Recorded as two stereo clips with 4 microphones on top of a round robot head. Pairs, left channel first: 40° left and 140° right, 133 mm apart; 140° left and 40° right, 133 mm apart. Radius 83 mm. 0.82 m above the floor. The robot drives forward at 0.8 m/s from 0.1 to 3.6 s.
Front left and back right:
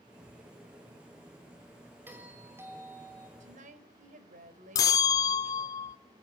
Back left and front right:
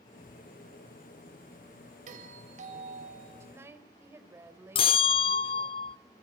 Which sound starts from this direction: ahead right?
A doorbell, at 2.1 s.